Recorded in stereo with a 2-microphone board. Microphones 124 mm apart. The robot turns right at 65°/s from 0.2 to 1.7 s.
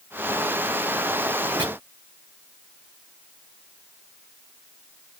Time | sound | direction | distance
1.6 | chopping | 35° right (ahead or behind) | 1.1 m